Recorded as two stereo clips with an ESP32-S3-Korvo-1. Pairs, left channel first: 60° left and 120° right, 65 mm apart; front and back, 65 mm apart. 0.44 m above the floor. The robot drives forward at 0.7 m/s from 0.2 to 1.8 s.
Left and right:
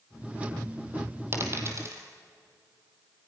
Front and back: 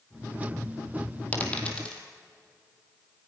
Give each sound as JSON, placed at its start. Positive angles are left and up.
{"t": 1.3, "sound": "a dropped coin", "azimuth_deg": -65, "distance_m": 3.0}